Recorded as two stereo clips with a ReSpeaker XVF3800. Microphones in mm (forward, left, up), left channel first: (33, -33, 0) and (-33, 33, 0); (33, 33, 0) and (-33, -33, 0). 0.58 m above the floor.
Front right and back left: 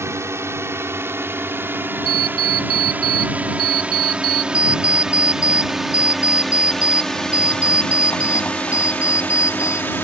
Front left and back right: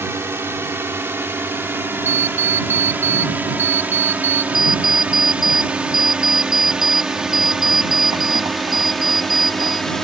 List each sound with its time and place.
0.0 s a drone: 175° left; by 10.0 s 35° right
2.0 s an alarm clock: 20° right
4.5 s an alarm clock: 100° right